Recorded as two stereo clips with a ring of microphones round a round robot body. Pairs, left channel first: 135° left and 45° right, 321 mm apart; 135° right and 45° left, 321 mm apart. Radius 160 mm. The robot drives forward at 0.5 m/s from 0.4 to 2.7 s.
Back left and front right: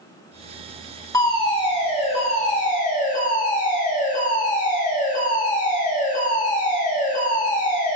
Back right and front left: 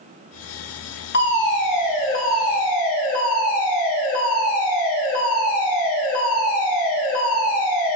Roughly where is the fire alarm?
Behind right.